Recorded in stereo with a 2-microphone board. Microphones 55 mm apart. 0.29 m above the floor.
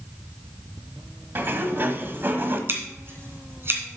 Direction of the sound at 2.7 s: 45° right (ahead or behind).